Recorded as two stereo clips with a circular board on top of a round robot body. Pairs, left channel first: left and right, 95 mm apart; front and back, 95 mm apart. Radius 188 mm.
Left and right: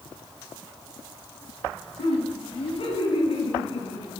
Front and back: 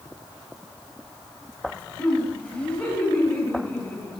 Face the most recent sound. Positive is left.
turn(degrees=70)